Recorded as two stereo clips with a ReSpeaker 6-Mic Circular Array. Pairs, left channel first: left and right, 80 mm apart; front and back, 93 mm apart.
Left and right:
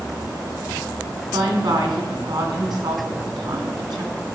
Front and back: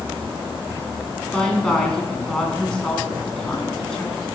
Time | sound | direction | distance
1.3 | a woman speaking | 80° right | 2.5 m